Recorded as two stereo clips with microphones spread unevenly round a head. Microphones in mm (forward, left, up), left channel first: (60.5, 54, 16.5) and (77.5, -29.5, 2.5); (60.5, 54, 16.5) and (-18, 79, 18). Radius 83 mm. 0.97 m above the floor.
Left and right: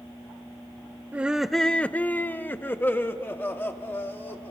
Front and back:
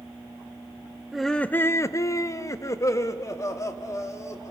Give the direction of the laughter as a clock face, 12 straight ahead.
4 o'clock.